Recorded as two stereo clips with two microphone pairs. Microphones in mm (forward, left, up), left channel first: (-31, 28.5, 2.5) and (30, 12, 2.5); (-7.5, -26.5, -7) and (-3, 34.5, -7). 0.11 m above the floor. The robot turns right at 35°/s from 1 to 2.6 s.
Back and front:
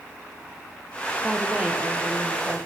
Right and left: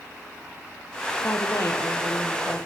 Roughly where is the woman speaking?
Right.